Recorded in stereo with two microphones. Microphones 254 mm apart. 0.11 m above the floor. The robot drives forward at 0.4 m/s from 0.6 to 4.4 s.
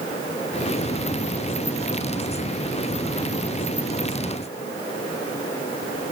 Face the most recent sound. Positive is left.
No sound to turn to.